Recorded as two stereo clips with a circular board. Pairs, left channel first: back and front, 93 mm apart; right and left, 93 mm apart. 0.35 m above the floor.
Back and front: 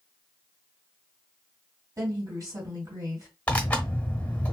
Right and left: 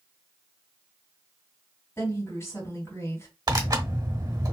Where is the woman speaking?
40° right, 2 m.